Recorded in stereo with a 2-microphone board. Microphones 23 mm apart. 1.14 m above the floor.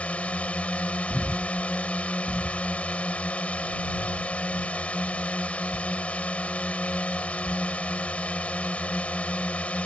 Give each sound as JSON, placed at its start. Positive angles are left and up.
{"t": 0.0, "sound": "a drone", "side_deg": 70}
{"t": 1.1, "sound": "breathing", "side_deg": -45}